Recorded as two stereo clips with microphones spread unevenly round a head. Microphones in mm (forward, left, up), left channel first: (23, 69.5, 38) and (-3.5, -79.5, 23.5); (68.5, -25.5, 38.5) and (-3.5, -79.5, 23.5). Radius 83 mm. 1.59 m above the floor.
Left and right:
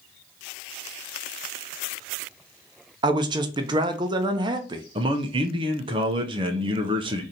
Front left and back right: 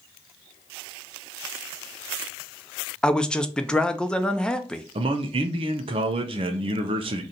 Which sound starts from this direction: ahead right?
A man speaking, at 3.0 s.